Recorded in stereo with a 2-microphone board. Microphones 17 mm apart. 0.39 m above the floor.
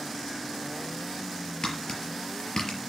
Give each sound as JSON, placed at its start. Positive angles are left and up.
{"t": 1.6, "sound": "tapping", "side_deg": 45, "distance_m": 5.0}